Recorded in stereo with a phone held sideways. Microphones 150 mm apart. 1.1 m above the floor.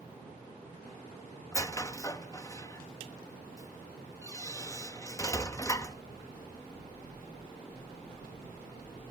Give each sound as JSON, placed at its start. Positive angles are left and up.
{"t": 1.5, "sound": "a squeak", "side_deg": 20, "distance_m": 0.8}